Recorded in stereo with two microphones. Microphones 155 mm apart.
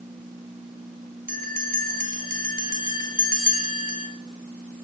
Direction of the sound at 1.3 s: 65° right (ahead or behind).